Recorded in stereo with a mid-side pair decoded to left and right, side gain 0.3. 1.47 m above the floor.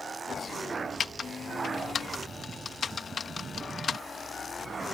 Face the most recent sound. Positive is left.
turn(degrees=60)